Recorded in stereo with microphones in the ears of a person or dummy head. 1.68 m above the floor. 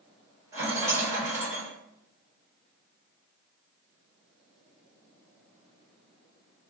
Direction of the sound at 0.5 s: 15° right (ahead or behind).